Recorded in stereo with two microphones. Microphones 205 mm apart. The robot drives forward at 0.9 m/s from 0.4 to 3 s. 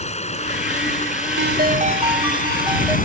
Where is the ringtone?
65° right (ahead or behind); by 3.0 s 15° right (ahead or behind).